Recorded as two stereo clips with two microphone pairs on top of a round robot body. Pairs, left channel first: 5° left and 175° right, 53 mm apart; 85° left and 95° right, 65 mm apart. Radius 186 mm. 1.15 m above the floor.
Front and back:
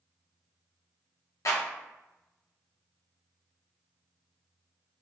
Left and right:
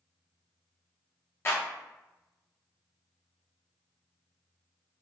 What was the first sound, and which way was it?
A clap, 30° left.